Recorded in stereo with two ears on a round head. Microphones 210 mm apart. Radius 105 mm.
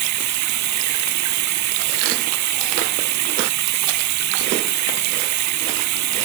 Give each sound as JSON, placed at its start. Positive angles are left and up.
{"t": 0.0, "sound": "running water", "side_deg": -80}